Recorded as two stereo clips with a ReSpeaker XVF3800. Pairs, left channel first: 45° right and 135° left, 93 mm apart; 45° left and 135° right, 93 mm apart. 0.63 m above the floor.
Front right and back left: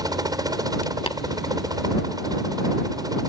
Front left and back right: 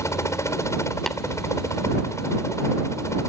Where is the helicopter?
95° left.